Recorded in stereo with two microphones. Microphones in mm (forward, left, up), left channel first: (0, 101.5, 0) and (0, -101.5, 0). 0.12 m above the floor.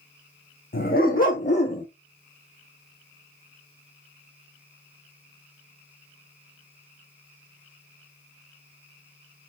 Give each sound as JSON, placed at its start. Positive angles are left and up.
{"t": 0.7, "sound": "a dog barking", "side_deg": 50, "distance_m": 2.0}